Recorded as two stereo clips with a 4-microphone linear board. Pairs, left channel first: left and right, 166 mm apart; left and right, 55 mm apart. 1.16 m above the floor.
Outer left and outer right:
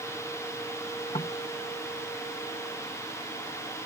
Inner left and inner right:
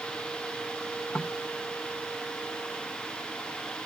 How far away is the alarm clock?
No alarm clock in this recording.